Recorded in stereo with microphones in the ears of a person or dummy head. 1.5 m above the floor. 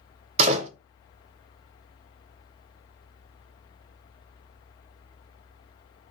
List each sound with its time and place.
0.4 s a door slam: 35° right (ahead or behind), 0.6 m